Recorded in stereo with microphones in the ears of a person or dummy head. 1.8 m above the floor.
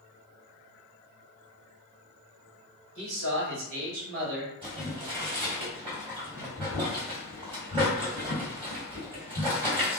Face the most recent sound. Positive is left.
turn(degrees=-25)  # may be behind; listen again after turning